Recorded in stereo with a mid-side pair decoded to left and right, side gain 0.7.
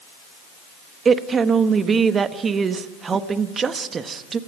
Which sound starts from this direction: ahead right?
A woman speaking, at 1.1 s.